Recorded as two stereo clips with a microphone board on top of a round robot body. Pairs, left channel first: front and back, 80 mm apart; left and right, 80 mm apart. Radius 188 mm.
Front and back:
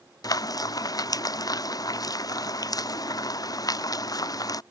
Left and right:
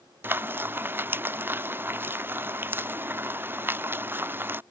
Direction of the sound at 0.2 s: 30° right.